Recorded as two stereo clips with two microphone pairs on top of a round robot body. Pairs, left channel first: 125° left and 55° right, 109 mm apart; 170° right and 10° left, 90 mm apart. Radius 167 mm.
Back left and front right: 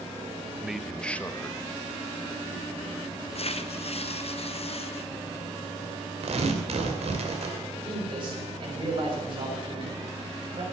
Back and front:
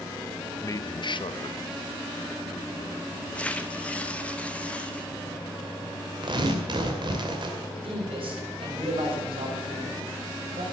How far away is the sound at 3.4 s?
About 1.3 m.